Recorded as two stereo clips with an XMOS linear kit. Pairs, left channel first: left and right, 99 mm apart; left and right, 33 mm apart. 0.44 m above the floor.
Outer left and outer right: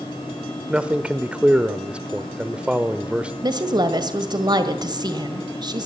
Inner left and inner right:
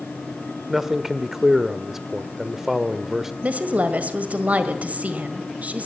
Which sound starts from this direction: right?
A woman speaking, at 3.4 s.